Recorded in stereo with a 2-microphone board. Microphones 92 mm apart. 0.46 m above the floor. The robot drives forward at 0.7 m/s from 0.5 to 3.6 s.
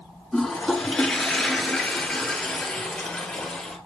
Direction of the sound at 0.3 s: 5° left (ahead or behind).